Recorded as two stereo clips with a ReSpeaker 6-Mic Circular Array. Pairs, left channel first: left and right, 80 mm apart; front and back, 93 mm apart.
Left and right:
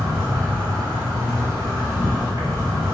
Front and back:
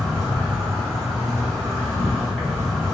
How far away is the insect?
About 1.5 m.